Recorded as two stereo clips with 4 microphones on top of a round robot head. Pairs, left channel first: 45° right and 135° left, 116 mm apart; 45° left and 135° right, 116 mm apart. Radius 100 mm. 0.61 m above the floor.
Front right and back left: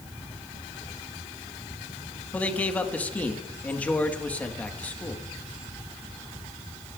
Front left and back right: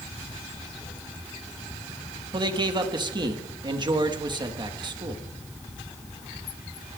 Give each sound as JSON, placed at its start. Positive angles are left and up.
{"t": 2.3, "sound": "a man speaking", "azimuth_deg": -115, "distance_m": 1.4}